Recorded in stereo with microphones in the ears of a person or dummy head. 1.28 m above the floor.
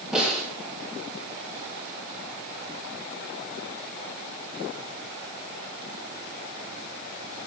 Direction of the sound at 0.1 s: 5° left (ahead or behind).